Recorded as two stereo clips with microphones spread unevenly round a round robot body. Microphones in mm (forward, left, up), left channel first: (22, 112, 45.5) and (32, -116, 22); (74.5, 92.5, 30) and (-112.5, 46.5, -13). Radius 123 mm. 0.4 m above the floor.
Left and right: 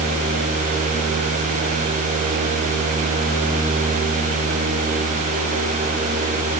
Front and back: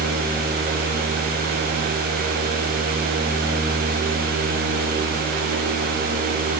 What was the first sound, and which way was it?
Only background noise.